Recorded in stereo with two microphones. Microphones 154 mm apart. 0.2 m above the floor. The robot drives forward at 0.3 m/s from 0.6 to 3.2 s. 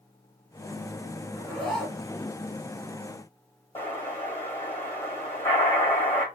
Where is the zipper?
5° left (ahead or behind), 1.4 m.